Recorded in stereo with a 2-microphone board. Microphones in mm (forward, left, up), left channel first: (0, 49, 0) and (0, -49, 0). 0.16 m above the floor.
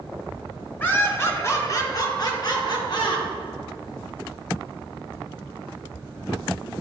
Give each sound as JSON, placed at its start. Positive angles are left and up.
{"t": 0.8, "sound": "laughter", "side_deg": 15, "distance_m": 1.6}